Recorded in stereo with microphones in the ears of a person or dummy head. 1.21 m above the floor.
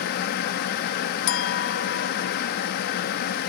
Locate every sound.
0.0 s a fan: 55° left (ahead or behind), 1.0 m
1.3 s a clink: 70° left (ahead or behind), 1.2 m